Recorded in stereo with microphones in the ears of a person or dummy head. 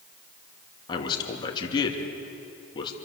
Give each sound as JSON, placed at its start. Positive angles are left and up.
{"t": 0.9, "sound": "a man speaking", "side_deg": 30, "distance_m": 2.5}